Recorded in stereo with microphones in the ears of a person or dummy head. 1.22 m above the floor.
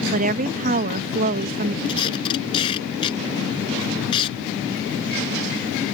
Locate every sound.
0.1 s a woman speaking: 45° right (ahead or behind)
1.9 s tape being pulled: 30° left (ahead or behind)